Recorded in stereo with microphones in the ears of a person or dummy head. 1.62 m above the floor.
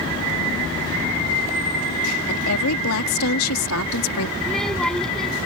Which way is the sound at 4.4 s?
5° left (ahead or behind).